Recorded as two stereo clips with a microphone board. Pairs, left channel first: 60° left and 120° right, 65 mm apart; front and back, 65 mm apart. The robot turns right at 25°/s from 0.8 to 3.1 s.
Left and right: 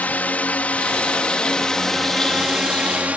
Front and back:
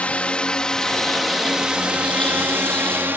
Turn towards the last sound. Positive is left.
turn(degrees=-165)